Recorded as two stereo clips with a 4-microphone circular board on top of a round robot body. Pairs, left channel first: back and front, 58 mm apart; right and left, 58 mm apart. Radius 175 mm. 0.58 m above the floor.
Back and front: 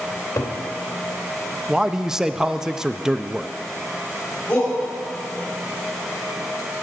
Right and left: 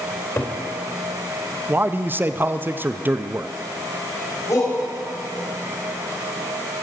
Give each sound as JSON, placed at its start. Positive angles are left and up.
{"t": 0.1, "sound": "a cupboard door", "azimuth_deg": -135, "distance_m": 2.5}
{"t": 1.7, "sound": "a man speaking", "azimuth_deg": 75, "distance_m": 0.7}
{"t": 4.5, "sound": "a shout", "azimuth_deg": -115, "distance_m": 4.5}